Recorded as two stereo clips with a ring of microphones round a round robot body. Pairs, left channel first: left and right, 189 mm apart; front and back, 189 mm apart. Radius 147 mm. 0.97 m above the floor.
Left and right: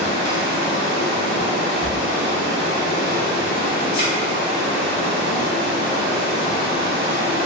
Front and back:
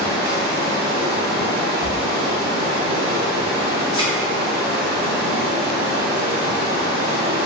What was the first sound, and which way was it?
Running water, 170° right.